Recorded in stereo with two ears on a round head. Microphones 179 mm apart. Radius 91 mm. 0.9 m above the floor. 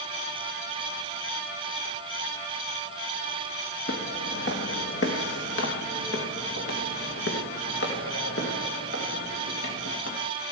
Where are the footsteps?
55° left (ahead or behind), 1.6 m; by 10.2 s 70° left (ahead or behind), 4.5 m.